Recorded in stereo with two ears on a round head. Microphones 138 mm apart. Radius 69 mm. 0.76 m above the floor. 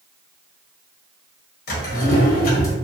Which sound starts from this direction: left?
A drawer, at 1.7 s.